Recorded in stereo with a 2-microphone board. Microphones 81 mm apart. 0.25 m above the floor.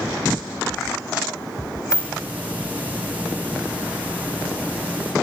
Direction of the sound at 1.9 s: 20° right (ahead or behind).